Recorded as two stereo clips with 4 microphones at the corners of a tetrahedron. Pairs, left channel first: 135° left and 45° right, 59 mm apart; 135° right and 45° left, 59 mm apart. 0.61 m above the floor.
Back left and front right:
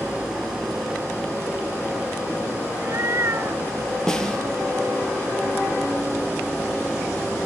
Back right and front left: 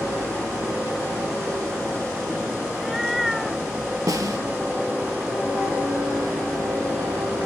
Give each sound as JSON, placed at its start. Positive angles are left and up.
{"t": 2.7, "sound": "a cat meowing", "azimuth_deg": -45, "distance_m": 0.7}
{"t": 4.1, "sound": "a snare drum", "azimuth_deg": 55, "distance_m": 2.5}